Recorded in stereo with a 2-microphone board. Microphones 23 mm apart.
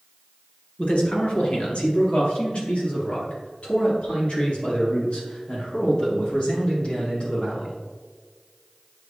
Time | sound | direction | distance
0.8 | a man speaking | 45° left (ahead or behind) | 2 m